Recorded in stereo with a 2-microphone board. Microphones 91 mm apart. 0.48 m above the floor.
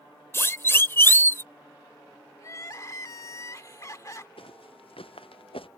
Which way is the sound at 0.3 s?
30° left (ahead or behind).